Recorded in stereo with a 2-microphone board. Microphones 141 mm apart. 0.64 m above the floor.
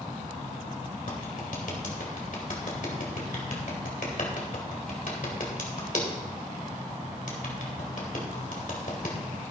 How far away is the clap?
About 2.5 m.